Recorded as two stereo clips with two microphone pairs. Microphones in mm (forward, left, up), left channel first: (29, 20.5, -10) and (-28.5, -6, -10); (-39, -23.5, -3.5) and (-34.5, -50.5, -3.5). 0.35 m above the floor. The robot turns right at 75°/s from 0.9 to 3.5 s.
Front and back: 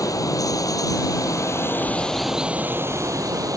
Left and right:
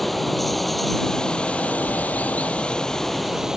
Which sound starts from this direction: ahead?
Running water, at 0.0 s.